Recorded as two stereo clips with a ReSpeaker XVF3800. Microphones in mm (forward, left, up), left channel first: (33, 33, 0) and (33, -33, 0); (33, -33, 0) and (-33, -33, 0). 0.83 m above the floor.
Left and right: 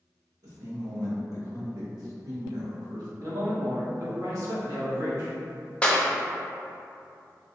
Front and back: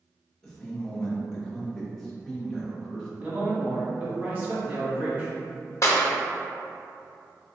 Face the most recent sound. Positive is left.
turn(degrees=20)